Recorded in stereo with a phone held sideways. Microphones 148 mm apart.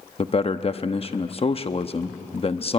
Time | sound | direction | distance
0.2 | a man speaking | 40° left (ahead or behind) | 0.9 m